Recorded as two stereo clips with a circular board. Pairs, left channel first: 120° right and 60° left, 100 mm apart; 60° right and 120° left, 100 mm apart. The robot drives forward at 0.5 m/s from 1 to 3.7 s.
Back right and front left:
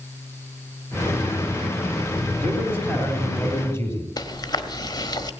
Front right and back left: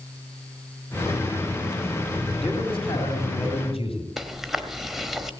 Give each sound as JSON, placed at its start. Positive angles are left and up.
{"t": 2.4, "sound": "a man speaking", "azimuth_deg": -50, "distance_m": 4.0}
{"t": 4.2, "sound": "chewing", "azimuth_deg": -155, "distance_m": 1.2}